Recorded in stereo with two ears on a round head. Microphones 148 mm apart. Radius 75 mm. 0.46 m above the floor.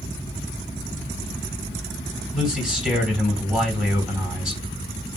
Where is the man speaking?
5° right (ahead or behind), 3 m.